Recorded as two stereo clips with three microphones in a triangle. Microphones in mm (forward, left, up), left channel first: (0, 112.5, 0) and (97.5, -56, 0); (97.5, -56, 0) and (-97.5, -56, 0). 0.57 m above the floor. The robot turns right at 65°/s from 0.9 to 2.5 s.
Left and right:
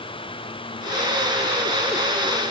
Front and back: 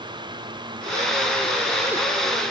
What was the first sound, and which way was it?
Only background noise.